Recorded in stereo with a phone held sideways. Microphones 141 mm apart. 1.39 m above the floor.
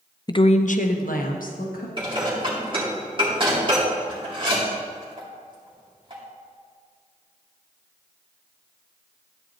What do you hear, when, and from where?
0.3 s a woman speaking: 30° left (ahead or behind), 0.5 m; by 1.9 s 75° left (ahead or behind), 1.7 m
2.0 s dishes clattering: 35° right (ahead or behind), 2.5 m